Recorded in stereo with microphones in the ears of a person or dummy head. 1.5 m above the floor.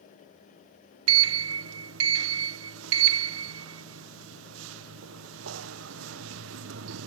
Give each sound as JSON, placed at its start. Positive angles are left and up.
{"t": 1.1, "sound": "a sliding door", "side_deg": -85}